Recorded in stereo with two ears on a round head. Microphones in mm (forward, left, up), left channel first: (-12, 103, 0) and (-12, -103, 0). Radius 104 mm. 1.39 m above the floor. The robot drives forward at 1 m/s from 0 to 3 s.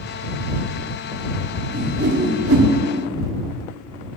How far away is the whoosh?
About 1.2 m.